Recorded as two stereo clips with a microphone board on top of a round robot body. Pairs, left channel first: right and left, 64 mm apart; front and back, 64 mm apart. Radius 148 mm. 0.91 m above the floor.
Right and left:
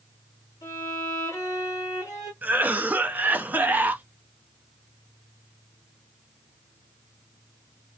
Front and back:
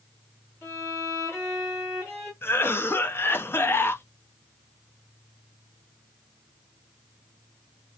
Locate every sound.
0.6 s a violin: 55° right, 0.8 m
2.4 s a cough: 35° left, 0.7 m